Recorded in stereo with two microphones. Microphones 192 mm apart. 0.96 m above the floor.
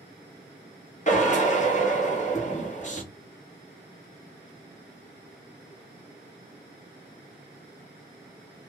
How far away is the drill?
About 1.4 m.